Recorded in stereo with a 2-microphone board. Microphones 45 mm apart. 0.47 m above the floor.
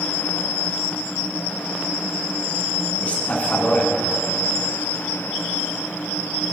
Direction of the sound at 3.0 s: 35° left (ahead or behind).